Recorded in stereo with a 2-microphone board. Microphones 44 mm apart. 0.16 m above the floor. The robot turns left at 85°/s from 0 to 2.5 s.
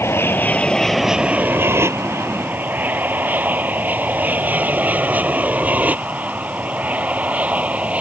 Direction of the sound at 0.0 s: 65° left (ahead or behind).